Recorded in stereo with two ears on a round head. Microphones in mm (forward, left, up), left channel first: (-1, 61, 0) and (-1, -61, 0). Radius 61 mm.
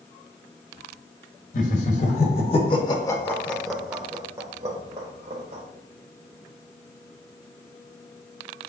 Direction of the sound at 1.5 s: 60° left (ahead or behind).